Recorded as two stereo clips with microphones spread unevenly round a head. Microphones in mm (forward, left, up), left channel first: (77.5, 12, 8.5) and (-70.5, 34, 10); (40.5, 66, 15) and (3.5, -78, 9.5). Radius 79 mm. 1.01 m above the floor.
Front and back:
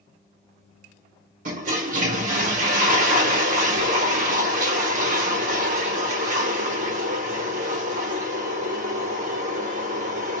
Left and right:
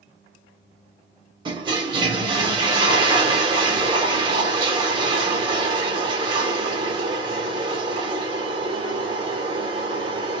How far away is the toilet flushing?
About 0.8 m.